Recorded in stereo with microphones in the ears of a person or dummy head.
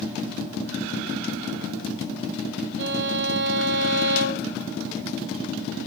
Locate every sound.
2.8 s a violin: 55° right (ahead or behind), 0.7 m